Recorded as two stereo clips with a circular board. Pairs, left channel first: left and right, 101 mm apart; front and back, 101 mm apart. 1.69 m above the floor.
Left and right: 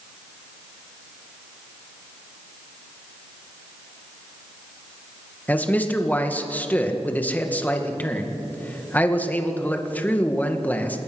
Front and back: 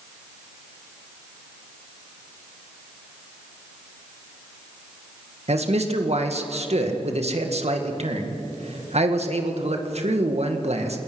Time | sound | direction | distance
5.5 | a man speaking | 165° left | 2 m